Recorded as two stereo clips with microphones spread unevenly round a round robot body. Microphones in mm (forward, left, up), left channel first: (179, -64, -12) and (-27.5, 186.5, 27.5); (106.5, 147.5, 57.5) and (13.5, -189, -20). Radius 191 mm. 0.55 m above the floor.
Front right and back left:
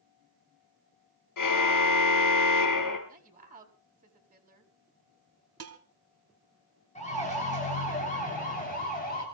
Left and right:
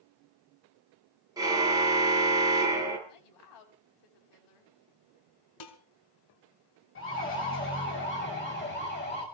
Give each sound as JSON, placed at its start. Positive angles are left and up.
{"t": 1.4, "sound": "a car horn", "azimuth_deg": -25, "distance_m": 5.0}
{"t": 3.1, "sound": "a woman speaking", "azimuth_deg": 65, "distance_m": 4.5}
{"t": 5.6, "sound": "dishes clattering", "azimuth_deg": 85, "distance_m": 3.0}
{"t": 7.0, "sound": "a siren", "azimuth_deg": 15, "distance_m": 10.0}